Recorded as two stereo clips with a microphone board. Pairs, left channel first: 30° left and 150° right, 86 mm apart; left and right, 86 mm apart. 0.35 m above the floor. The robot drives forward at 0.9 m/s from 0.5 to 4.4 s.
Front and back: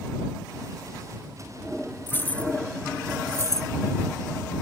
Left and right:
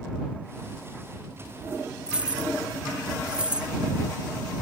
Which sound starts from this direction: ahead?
Keys jangling, at 2.1 s.